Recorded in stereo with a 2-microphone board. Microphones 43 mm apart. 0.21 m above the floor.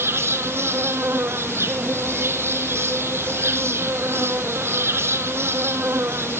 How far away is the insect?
About 1.2 m.